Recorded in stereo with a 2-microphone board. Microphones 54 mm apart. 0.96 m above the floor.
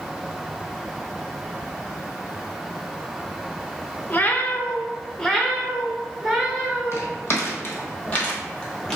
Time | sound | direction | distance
4.1 | a cat meowing | 35° left (ahead or behind) | 0.5 m
6.9 | footsteps | 50° left (ahead or behind) | 1.6 m